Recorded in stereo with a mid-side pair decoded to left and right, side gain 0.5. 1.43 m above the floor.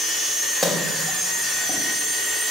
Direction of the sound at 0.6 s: 10° left.